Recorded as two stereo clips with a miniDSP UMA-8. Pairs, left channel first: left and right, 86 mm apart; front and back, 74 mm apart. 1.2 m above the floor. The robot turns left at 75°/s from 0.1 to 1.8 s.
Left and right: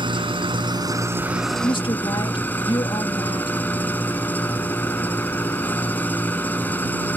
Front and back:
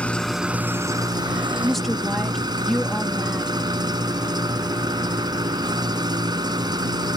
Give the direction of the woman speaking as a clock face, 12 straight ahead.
9 o'clock.